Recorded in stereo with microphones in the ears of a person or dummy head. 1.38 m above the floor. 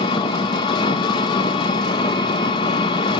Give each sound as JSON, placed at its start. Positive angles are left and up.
{"t": 0.0, "sound": "an engine running", "side_deg": 25, "distance_m": 0.9}